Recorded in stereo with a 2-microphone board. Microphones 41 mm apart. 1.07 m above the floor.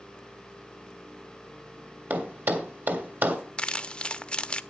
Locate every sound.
2.1 s a thud: 65° right (ahead or behind), 1.8 m
3.6 s crumpling: 25° left (ahead or behind), 0.6 m